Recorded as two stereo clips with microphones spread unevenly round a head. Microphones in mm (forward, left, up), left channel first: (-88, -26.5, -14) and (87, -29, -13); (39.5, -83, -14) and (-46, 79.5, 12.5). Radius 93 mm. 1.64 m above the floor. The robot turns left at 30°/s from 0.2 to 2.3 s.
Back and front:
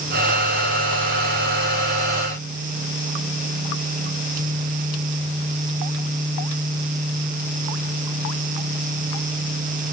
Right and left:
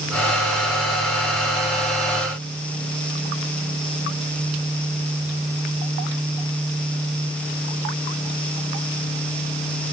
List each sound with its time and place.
Only background noise.